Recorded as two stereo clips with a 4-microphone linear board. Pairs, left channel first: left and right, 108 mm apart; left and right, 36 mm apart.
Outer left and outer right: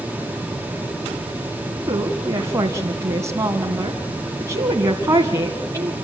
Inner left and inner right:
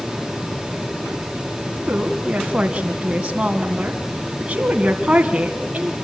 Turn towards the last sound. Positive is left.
turn(degrees=-30)  # may be behind; listen again after turning